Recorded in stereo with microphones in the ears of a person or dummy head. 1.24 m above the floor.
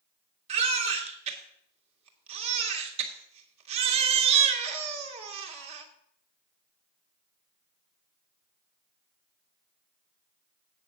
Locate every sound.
0.5 s a baby crying: 40° right (ahead or behind), 1.9 m